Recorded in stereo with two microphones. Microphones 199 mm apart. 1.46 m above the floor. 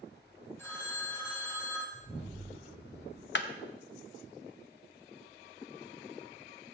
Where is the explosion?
15° right (ahead or behind), 4 m.